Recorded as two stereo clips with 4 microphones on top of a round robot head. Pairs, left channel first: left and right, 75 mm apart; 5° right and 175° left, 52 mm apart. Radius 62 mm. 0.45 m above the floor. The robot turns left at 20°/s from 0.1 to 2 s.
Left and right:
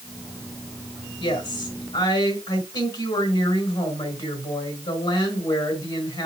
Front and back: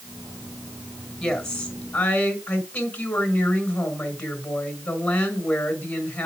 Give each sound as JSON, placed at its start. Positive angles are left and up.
{"t": 1.2, "sound": "a woman speaking", "azimuth_deg": 75, "distance_m": 4.5}